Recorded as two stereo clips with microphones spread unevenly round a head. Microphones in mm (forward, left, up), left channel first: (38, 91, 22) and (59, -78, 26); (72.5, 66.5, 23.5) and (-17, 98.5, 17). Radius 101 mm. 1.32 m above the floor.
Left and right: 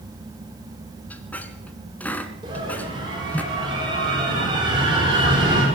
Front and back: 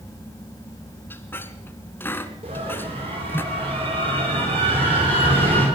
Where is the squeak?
20° left, 1.4 m.